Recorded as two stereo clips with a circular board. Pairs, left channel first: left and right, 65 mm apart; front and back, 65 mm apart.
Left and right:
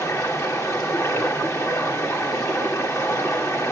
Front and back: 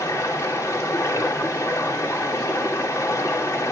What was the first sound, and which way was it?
Running water, 50° left.